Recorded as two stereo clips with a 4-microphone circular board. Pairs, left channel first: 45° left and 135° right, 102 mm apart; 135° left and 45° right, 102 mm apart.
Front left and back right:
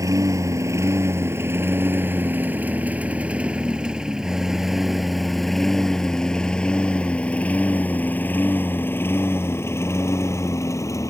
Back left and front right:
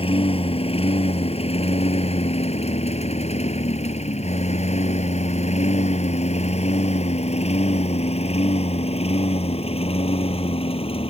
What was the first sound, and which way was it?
A lawn mower, 165° left.